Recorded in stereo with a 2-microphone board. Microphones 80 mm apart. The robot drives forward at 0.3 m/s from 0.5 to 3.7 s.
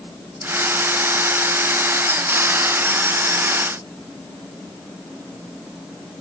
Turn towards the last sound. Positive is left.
No sound to turn to.